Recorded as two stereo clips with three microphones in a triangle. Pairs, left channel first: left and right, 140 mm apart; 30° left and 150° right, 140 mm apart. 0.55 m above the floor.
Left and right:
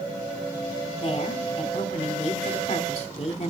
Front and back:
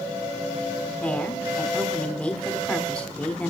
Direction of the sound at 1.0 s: 110° left.